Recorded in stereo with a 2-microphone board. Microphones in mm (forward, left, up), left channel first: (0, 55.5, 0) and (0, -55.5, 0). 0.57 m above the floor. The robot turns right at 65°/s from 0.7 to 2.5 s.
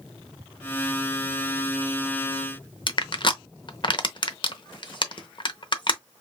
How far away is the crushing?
About 0.7 m.